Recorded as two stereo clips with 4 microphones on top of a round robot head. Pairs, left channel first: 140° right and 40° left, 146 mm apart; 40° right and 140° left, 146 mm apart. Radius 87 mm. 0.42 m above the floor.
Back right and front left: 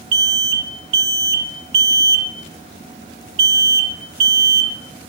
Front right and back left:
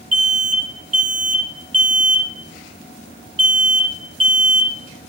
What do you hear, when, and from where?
0.1 s an alarm: 85° left, 1.4 m